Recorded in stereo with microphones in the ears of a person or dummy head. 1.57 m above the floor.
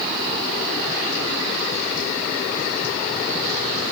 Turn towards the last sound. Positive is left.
No sound to turn to.